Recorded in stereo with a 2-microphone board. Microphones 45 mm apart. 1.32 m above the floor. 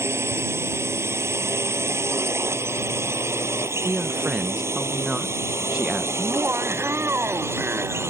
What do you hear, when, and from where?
0.0 s a drone: 80° right; by 8.1 s 90° right
3.9 s a man speaking: 25° right (ahead or behind)
6.2 s laughter: 60° right (ahead or behind)